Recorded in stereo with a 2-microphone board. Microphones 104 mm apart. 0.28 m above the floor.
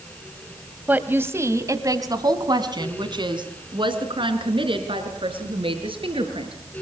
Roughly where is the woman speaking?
Centre.